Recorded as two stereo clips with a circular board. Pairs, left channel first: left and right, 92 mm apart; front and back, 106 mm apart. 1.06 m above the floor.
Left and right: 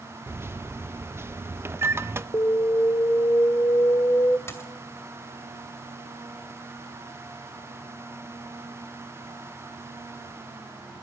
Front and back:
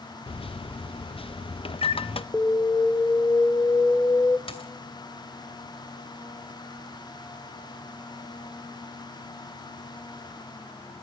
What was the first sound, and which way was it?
A microwave, 25° right.